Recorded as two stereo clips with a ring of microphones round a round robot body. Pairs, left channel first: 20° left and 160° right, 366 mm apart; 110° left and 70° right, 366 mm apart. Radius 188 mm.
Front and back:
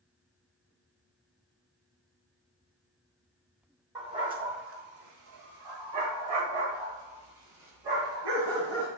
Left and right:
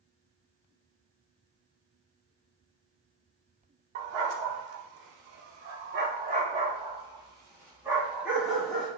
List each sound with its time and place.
4.0 s a dog barking: 80° right, 1.2 m; by 8.9 s 160° right, 3 m